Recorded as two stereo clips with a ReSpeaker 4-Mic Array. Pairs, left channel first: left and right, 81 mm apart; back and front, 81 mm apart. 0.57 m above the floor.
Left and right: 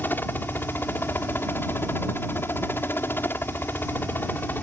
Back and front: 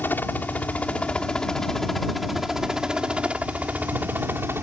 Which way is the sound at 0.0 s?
135° left.